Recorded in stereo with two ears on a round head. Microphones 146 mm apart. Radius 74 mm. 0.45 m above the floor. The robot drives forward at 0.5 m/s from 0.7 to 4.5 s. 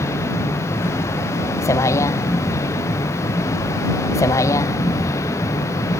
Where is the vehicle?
20° left (ahead or behind).